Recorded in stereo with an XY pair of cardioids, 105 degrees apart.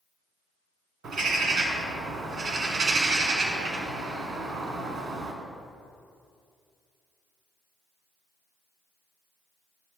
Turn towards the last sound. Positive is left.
turn(degrees=-60)